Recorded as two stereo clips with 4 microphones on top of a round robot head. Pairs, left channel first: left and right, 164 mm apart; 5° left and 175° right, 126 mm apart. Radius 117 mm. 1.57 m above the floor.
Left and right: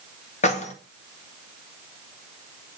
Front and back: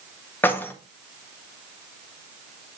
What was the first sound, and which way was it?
Keys jangling, 70° left.